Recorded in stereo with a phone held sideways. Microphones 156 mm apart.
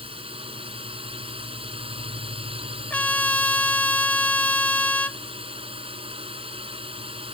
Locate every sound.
0.0 s a drone: 35° right (ahead or behind)
2.9 s a trumpet: 10° left (ahead or behind)